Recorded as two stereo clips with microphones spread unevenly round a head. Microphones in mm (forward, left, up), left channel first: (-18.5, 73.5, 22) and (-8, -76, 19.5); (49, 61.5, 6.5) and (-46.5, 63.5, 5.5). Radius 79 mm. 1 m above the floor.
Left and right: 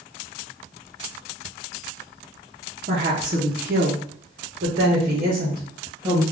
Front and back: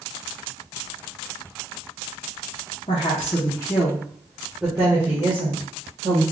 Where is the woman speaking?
45° right, 1.0 m; by 6.2 s 130° right, 1.6 m.